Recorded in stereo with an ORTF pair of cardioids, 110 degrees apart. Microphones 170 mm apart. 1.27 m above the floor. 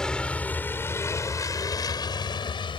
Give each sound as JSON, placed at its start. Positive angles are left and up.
{"t": 0.0, "sound": "a vehicle", "azimuth_deg": 5}